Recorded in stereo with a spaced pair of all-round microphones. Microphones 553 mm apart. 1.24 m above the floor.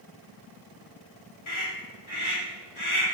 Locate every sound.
1.5 s a scream: 60° left (ahead or behind), 3.5 m